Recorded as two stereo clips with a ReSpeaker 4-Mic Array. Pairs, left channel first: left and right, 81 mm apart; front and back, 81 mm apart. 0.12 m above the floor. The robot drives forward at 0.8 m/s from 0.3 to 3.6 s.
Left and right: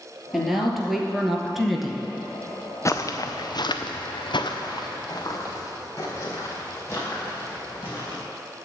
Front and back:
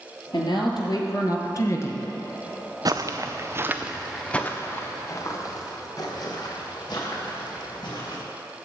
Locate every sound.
0.3 s a woman speaking: straight ahead, 2 m
2.9 s footsteps: 140° left, 0.8 m; by 8.2 s 30° left, 5 m